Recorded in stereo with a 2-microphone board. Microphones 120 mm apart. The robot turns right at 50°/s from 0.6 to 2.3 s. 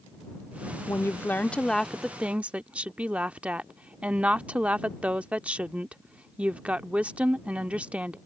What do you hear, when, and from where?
0.9 s a woman speaking: 130° left; by 8.2 s 160° right